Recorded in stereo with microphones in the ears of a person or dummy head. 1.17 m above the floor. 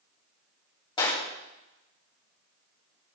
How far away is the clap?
About 2.5 m.